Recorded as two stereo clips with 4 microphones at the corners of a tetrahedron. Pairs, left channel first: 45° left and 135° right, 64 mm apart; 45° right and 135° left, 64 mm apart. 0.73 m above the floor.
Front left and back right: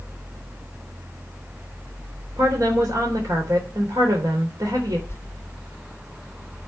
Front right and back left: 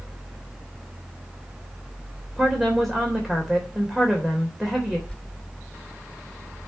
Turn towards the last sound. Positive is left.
turn(degrees=15)